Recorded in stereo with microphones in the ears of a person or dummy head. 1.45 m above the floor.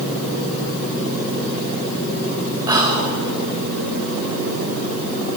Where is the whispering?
25° right (ahead or behind), 3 m.